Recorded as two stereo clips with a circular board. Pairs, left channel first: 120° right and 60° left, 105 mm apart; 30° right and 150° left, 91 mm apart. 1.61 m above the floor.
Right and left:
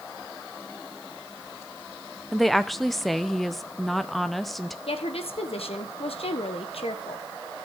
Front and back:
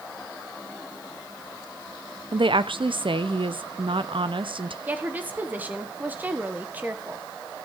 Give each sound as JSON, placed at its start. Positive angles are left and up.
{"t": 2.3, "sound": "a woman speaking", "azimuth_deg": 150, "distance_m": 0.7}
{"t": 4.9, "sound": "a woman speaking", "azimuth_deg": -140, "distance_m": 1.4}